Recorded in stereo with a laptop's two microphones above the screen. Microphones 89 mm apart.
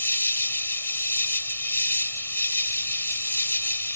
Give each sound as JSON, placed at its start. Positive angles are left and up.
{"t": 0.0, "sound": "an insect", "side_deg": 30}